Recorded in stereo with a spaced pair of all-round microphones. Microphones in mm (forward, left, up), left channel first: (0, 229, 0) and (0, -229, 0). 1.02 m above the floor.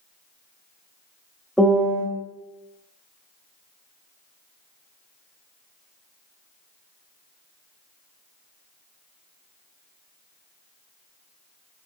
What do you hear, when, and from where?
1.6 s a piano: centre (ahead or behind), 0.9 m